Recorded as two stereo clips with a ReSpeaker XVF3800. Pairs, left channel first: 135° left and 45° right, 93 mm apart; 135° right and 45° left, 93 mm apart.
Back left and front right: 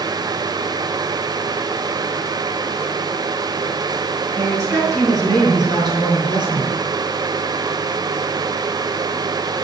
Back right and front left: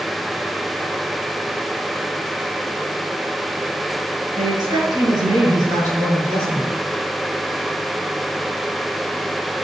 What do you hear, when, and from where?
4.4 s a woman speaking: 10° left, 6 m; by 6.7 s 15° right, 6 m